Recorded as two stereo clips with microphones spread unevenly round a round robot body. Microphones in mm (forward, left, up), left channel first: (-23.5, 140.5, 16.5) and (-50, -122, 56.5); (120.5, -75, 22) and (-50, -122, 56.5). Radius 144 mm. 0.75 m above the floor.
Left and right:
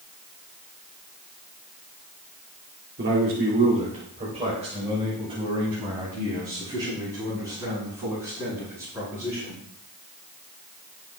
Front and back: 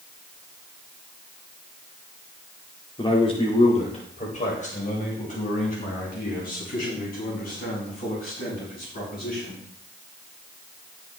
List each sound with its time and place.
3.0 s a man speaking: 45° right, 2 m; by 9.6 s 15° right, 10 m